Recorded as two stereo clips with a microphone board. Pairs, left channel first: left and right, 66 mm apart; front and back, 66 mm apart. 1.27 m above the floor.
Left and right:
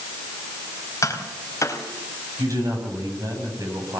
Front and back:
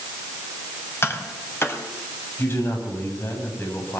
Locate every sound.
1.0 s tapping: 50° left, 4 m
2.4 s a man speaking: 55° right, 9 m